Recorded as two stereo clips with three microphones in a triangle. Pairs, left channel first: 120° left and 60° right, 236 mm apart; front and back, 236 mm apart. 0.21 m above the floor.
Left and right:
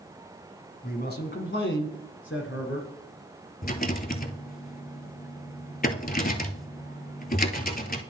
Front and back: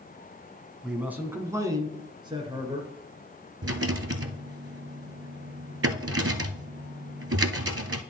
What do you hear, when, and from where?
0.8 s a man speaking: 95° left, 1.2 m; by 2.9 s 115° left, 2.5 m
3.6 s a rattle: 165° left, 0.7 m